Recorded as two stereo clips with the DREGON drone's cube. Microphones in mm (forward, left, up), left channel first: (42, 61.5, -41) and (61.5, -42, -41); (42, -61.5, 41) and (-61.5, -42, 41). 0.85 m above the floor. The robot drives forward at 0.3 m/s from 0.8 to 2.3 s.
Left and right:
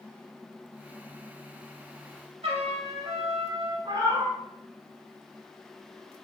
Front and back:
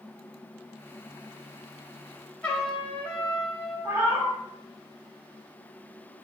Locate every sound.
2.4 s a trumpet: 90° right, 0.7 m
3.9 s a cat meowing: 125° right, 0.7 m